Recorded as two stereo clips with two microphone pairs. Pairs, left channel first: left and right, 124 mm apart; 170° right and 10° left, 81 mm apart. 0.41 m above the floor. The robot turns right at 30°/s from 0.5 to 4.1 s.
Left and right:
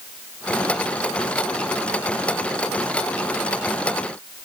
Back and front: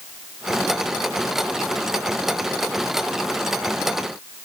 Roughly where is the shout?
I don't hear a shout.